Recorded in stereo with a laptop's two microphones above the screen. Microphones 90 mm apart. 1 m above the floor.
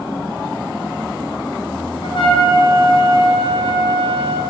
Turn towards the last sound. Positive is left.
turn(degrees=65)  # may be behind; listen again after turning